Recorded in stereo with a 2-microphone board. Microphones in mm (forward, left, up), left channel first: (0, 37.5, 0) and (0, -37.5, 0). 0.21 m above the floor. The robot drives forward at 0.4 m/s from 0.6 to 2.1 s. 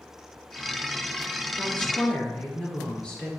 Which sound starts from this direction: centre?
A woman speaking, at 1.6 s.